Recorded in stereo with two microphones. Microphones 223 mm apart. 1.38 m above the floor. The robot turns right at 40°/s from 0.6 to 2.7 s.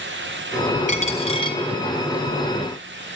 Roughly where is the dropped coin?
Left.